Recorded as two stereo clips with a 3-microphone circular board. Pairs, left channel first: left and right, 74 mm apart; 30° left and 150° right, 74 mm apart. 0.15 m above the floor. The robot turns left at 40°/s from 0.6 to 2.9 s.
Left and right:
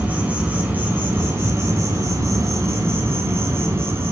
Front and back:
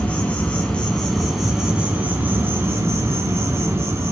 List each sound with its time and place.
0.0 s an insect: 30° right, 2.5 m; by 4.1 s 125° right, 2.5 m